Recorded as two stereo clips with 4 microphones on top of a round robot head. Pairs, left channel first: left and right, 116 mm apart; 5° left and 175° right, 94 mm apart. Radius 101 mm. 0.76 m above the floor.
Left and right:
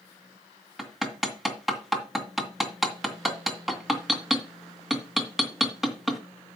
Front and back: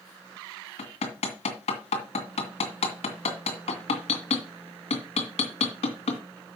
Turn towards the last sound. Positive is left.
turn(degrees=0)